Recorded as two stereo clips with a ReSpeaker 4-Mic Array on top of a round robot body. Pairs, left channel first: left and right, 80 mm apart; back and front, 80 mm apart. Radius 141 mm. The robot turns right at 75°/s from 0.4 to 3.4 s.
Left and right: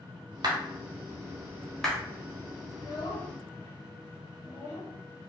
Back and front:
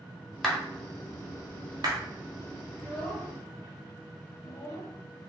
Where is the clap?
95° right, 1.0 m; by 2.0 s 20° left, 1.0 m.